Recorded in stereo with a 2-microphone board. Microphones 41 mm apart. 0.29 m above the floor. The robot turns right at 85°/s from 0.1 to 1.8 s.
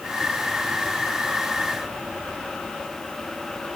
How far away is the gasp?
No gasp in this recording.